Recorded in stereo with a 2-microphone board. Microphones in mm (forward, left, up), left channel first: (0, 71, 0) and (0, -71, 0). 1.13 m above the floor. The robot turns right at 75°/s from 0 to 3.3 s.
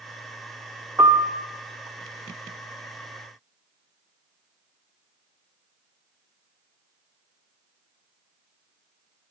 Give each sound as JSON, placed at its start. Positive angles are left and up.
{"t": 1.0, "sound": "a piano", "side_deg": -20, "distance_m": 0.7}